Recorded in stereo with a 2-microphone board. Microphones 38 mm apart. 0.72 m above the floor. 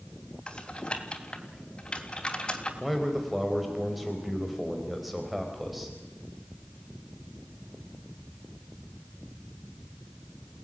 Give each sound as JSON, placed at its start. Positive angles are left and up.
{"t": 0.5, "sound": "typing on a keyboard", "side_deg": 25, "distance_m": 3.0}
{"t": 2.8, "sound": "a man speaking", "side_deg": -5, "distance_m": 3.5}